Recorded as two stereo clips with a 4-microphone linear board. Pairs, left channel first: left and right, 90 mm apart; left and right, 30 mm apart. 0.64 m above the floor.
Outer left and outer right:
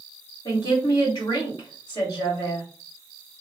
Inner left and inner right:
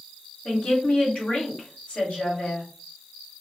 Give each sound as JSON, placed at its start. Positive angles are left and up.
{"t": 0.5, "sound": "a woman speaking", "side_deg": 50, "distance_m": 1.7}